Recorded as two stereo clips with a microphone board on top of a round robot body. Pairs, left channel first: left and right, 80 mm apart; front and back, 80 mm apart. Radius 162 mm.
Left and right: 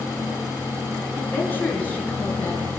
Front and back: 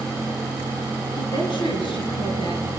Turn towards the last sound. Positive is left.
turn(degrees=20)